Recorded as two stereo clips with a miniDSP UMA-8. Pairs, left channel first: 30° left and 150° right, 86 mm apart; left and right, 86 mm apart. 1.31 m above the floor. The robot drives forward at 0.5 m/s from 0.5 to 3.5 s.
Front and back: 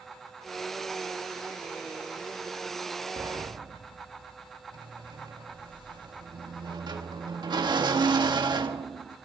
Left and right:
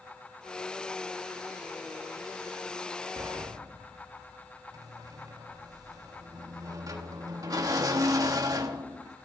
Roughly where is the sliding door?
Behind right.